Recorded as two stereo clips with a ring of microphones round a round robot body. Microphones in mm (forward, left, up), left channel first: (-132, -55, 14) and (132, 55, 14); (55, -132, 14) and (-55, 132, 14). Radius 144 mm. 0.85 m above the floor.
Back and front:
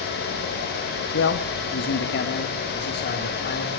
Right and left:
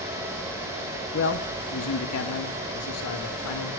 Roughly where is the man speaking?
Behind right.